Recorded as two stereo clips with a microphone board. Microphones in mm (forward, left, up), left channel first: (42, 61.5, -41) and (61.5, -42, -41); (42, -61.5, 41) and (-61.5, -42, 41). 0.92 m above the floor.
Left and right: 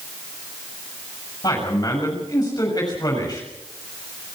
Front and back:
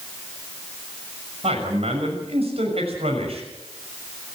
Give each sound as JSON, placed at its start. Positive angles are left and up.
{"t": 1.4, "sound": "a man speaking", "azimuth_deg": 150, "distance_m": 6.0}